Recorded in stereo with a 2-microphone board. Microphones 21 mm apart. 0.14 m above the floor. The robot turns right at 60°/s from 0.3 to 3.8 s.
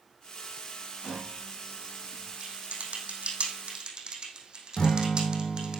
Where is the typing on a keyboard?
55° right (ahead or behind), 3 m; by 5.8 s 40° right (ahead or behind), 3 m.